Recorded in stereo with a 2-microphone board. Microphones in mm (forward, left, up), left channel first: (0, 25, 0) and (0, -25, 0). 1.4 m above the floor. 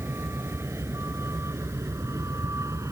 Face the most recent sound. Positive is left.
turn(degrees=-80)